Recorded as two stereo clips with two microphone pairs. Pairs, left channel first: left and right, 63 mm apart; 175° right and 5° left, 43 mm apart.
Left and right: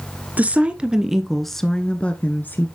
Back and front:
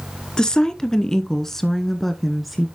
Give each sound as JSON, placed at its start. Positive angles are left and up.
{"t": 0.4, "sound": "a woman speaking", "azimuth_deg": -120, "distance_m": 1.2}